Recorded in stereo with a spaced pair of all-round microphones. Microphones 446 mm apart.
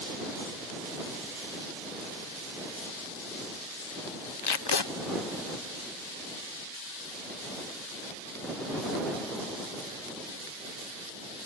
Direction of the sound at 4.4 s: 65° left (ahead or behind).